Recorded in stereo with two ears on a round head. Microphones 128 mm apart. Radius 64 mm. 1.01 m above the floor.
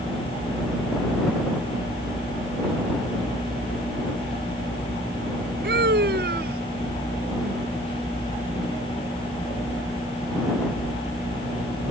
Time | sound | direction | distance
5.6 | a scream | 75° right (ahead or behind) | ?